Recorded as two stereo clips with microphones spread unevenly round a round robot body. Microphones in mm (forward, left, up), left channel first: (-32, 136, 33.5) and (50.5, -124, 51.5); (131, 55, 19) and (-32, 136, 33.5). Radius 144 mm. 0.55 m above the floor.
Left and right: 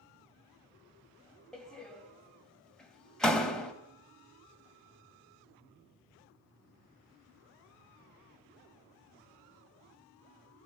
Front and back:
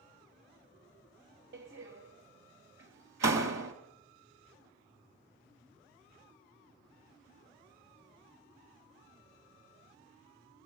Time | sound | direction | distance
1.5 | a door slam | 165° right | 2.5 m